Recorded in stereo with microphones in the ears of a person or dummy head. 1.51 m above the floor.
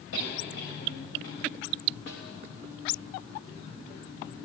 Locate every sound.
0.1 s a cough: 65° left (ahead or behind), 7 m
2.1 s a snare drum: 70° left (ahead or behind), 3 m